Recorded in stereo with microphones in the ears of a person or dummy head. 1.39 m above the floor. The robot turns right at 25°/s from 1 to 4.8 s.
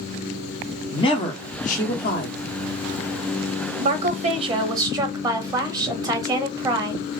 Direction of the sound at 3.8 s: 45° right (ahead or behind).